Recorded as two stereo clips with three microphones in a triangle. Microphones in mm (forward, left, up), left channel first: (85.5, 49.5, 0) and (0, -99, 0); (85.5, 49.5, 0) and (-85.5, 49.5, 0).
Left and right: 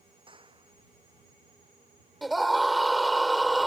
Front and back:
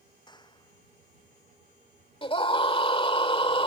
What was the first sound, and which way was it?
A clap, 60° right.